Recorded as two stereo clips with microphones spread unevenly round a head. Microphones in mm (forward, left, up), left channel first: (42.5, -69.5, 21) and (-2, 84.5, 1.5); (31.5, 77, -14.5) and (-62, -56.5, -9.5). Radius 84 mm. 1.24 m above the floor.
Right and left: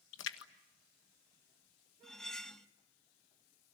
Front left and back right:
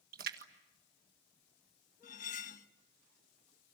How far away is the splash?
About 1.6 m.